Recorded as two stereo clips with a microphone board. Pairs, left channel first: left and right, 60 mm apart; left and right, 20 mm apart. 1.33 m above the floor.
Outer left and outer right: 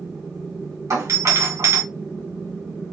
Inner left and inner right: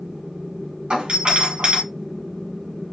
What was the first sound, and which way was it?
A doorbell, 70° right (ahead or behind).